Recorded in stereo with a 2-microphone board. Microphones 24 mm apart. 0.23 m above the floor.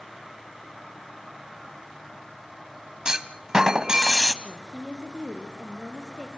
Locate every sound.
3.0 s a clunk: 30° right (ahead or behind), 1.3 m
4.4 s a woman speaking: 35° right (ahead or behind), 4 m